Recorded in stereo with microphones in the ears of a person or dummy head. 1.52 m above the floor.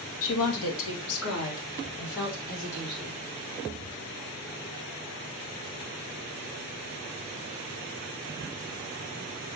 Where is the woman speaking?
70° left (ahead or behind), 1.9 m; by 3.1 s 80° left, 5.5 m.